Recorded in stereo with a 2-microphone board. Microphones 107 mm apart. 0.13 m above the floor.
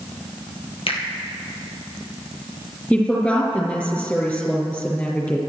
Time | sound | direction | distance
0.9 | a finger snap | 60° left (ahead or behind) | 2.5 m
2.9 | a woman speaking | 15° left (ahead or behind) | 4 m